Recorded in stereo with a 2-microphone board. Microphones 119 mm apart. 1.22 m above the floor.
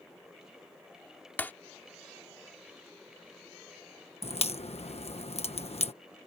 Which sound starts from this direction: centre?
Breaking glass, at 1.4 s.